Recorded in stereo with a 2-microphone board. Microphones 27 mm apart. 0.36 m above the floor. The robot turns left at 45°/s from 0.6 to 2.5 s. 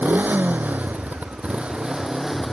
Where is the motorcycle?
90° right; by 2.5 s 175° right.